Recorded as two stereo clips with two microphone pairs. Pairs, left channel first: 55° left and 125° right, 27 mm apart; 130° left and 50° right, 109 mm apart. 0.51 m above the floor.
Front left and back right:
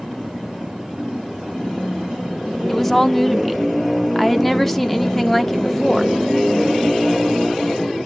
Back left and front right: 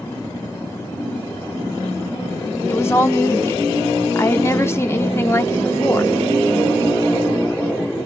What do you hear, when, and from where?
2.7 s a woman speaking: 120° left, 1.0 m